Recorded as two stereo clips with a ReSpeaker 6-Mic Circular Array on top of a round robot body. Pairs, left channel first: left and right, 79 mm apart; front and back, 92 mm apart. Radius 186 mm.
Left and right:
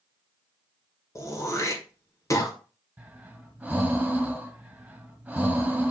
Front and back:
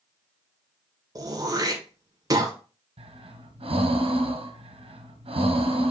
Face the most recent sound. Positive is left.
turn(degrees=-170)